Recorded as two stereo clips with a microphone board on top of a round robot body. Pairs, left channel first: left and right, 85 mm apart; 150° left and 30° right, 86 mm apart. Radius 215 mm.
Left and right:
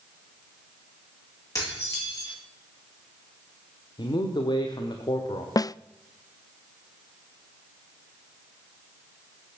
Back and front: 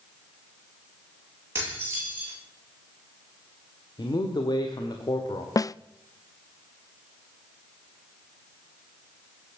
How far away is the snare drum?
About 0.5 m.